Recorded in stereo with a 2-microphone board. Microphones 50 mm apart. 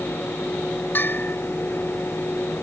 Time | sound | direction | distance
0.9 | a bell | 50° left (ahead or behind) | ?